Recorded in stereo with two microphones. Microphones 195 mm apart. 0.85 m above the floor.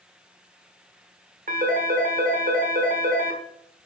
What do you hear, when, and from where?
1.5 s a phone ringing: 45° right (ahead or behind), 1.5 m